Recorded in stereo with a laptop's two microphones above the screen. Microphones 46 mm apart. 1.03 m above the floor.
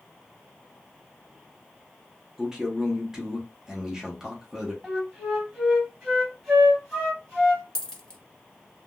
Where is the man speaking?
10° right (ahead or behind), 0.8 m.